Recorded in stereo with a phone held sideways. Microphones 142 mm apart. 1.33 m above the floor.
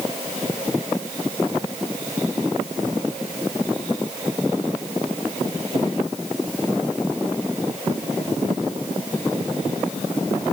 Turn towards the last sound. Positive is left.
No sound to turn to.